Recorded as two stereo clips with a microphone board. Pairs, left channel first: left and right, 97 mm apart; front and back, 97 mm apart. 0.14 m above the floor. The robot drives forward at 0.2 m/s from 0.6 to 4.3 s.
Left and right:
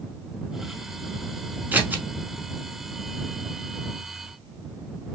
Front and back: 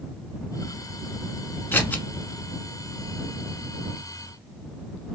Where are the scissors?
40° right, 0.7 m; by 2.0 s 50° right, 0.7 m.